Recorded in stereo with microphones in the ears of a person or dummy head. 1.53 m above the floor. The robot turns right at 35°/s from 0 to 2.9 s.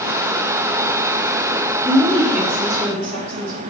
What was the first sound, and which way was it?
A woman speaking, 165° right.